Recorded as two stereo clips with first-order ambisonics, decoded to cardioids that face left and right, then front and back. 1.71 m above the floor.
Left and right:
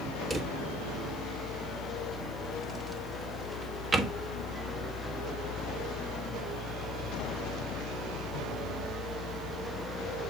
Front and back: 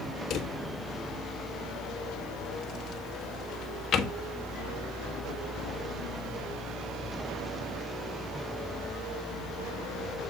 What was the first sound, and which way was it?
A drawer, 20° right.